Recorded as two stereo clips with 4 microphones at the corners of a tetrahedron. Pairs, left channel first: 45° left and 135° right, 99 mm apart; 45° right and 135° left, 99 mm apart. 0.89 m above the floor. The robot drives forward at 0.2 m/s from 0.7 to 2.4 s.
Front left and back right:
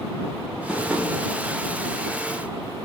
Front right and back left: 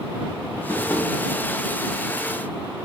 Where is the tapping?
55° right, 0.7 m; by 1.1 s 65° right, 0.7 m.